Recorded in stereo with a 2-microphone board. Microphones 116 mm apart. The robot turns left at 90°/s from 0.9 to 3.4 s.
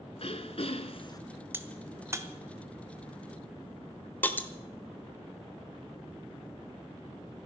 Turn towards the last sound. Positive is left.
turn(degrees=15)  # may be behind; listen again after turning